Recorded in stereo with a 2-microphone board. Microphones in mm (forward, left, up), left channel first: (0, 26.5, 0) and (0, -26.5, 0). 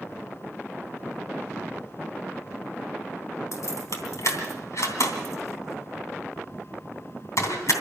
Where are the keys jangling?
65° left (ahead or behind), 3 m.